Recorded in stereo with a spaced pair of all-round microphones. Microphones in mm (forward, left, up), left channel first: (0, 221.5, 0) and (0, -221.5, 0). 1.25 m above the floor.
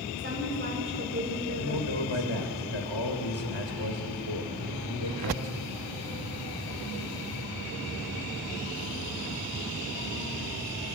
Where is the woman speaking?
25° right (ahead or behind), 5 m.